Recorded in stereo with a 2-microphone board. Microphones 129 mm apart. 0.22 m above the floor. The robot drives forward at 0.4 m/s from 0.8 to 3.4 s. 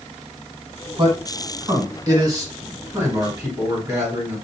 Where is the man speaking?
40° right (ahead or behind), 1.4 m; by 4.3 s 25° right (ahead or behind), 2 m.